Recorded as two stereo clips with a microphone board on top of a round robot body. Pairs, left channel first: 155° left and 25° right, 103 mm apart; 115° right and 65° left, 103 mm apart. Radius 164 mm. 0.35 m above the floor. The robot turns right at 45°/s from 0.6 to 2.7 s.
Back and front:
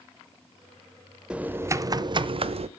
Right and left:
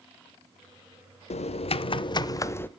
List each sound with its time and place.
1.3 s typing on a keyboard: 105° right, 0.6 m; by 2.7 s 40° right, 0.6 m